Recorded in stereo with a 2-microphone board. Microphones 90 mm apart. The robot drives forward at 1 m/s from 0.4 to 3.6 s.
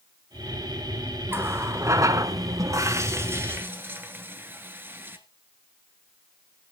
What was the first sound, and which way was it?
A running tap, 25° right (ahead or behind).